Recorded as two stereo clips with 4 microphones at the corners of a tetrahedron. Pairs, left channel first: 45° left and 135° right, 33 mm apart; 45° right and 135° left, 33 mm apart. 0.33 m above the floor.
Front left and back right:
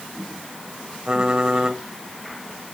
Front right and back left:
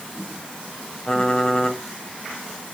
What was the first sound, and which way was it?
Typing on a keyboard, 95° right.